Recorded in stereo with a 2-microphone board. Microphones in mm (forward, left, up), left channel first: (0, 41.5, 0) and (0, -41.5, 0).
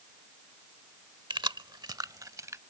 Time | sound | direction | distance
1.3 | keys jangling | 70° right (ahead or behind) | ?